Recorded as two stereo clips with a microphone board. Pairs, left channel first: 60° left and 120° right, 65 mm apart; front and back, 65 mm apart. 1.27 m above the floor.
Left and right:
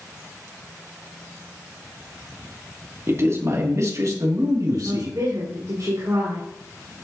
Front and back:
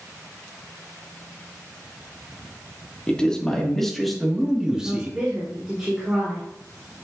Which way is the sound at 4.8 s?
105° right.